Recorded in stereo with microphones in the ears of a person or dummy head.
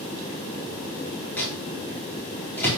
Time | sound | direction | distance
1.4 | a microwave | 15° left (ahead or behind) | 4.5 m